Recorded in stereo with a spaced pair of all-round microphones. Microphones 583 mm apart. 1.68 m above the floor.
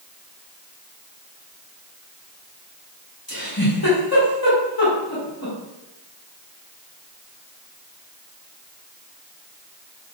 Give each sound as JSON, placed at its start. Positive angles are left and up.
{"t": 3.3, "sound": "a giggle", "side_deg": 40, "distance_m": 1.2}